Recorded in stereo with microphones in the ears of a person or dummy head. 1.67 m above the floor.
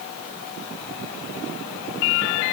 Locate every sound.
Only background noise.